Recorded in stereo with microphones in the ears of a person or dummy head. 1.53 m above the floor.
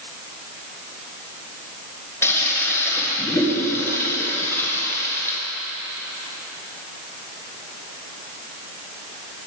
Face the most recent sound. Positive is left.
turn(degrees=15)  # may be behind; listen again after turning